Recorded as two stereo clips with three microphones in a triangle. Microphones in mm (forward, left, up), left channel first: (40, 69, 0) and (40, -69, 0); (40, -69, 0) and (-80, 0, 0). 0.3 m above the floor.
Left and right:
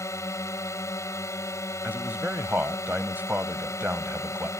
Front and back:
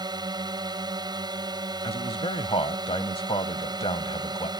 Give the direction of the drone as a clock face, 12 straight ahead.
7 o'clock.